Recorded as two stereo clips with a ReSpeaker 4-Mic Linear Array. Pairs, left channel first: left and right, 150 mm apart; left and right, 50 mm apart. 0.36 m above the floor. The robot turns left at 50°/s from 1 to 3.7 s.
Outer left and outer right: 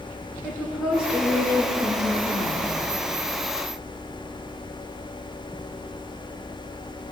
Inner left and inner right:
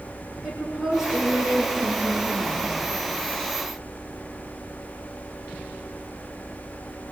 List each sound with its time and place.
0.4 s a woman speaking: 5° right, 6 m; by 2.8 s 90° right, 6 m